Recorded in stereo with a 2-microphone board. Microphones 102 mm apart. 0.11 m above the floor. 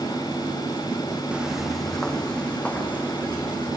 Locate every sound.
1.3 s footsteps: 10° right (ahead or behind), 1.2 m; by 3.7 s 15° left (ahead or behind), 4 m